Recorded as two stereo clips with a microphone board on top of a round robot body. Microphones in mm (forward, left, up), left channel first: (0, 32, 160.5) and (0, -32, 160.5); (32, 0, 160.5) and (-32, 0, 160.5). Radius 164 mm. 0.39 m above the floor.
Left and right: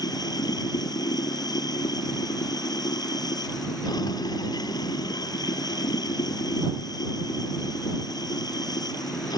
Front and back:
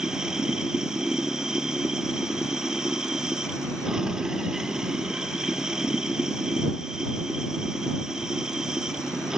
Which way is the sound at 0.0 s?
100° left.